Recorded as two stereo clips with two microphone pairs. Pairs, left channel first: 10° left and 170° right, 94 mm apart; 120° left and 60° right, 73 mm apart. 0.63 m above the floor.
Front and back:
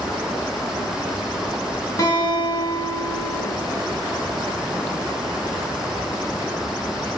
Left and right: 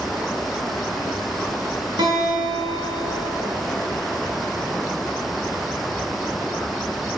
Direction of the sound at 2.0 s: 45° right.